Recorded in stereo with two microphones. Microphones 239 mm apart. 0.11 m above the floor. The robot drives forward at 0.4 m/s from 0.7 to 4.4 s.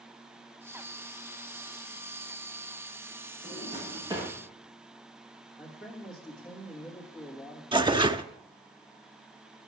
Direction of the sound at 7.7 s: 20° right (ahead or behind).